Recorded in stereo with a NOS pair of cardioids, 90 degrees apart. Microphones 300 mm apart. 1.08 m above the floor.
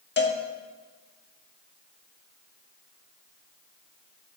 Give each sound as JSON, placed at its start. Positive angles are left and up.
{"t": 0.2, "sound": "a cowbell", "azimuth_deg": 35, "distance_m": 1.6}